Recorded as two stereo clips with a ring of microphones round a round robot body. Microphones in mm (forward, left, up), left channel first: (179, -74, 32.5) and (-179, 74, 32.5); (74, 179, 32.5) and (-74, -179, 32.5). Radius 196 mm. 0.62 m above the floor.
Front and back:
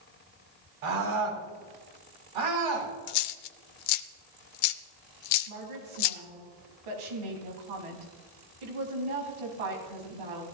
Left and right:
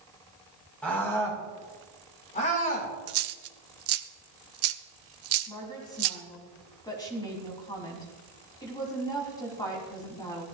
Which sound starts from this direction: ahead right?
A dropped coin, at 3.1 s.